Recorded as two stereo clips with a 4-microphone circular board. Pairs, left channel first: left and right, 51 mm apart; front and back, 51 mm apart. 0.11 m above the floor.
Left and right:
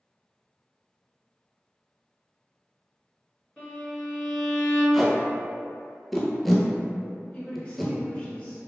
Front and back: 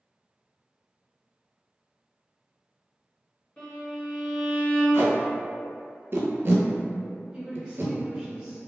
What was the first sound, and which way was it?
A violin, 30° left.